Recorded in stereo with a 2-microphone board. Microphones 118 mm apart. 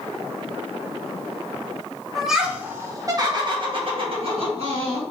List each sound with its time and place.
2.1 s laughter: centre (ahead or behind), 0.9 m; by 5.0 s 60° right (ahead or behind), 1.8 m